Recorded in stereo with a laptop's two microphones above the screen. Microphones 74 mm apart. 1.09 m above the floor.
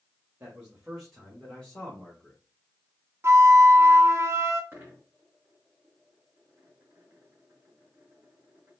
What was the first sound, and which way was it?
A man speaking, 25° right (ahead or behind).